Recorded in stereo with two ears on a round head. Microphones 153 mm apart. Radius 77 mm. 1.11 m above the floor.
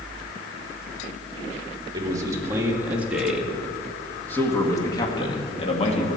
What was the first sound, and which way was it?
A man speaking, 20° right (ahead or behind).